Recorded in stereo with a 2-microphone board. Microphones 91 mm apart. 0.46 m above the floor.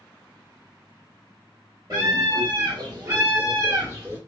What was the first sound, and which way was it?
A scream, 40° right (ahead or behind).